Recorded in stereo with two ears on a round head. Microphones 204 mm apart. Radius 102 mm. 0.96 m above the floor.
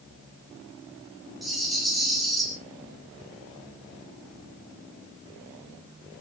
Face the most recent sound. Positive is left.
turn(degrees=0)  # may be behind; listen again after turning